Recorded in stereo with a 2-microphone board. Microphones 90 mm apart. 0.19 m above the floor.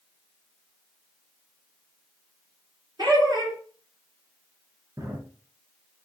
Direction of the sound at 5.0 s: 40° right (ahead or behind).